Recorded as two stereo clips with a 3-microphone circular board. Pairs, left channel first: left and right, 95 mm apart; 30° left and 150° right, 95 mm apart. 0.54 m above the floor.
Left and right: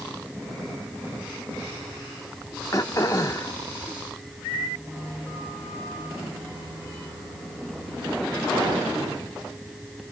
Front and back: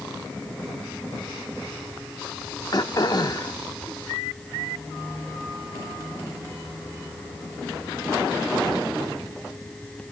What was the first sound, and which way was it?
Throat clearing, 50° left.